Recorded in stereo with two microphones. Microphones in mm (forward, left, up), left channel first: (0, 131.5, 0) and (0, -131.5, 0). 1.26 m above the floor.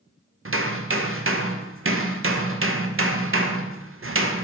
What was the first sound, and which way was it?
Hammering, 55° right (ahead or behind).